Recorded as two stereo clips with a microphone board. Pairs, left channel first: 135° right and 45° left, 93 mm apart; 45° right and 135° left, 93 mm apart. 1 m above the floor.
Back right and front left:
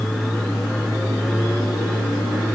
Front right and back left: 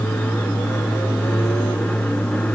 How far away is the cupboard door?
I don't hear a cupboard door.